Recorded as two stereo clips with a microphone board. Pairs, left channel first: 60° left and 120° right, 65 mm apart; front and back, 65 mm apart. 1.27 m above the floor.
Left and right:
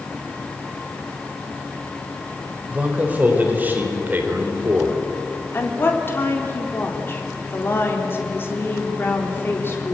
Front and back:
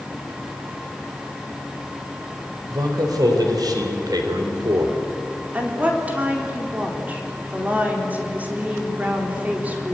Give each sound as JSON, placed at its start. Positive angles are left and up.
{"t": 2.7, "sound": "a man speaking", "azimuth_deg": 175, "distance_m": 4.5}
{"t": 5.5, "sound": "a woman speaking", "azimuth_deg": 115, "distance_m": 4.0}